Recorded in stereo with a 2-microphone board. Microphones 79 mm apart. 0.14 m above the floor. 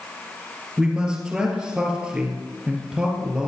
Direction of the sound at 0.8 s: 10° right (ahead or behind).